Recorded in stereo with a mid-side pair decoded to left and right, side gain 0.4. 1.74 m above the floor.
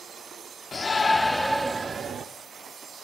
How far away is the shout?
About 0.9 m.